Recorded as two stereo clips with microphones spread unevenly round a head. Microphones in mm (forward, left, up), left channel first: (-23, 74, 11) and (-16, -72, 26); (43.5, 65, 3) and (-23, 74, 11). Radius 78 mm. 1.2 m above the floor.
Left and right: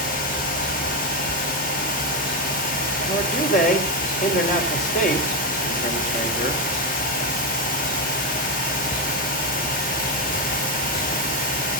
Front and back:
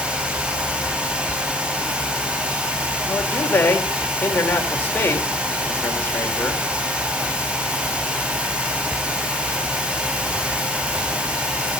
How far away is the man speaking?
About 4.5 m.